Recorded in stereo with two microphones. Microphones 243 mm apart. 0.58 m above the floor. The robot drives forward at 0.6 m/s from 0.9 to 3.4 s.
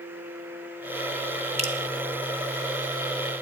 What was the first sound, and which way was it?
Dripping, 25° right (ahead or behind).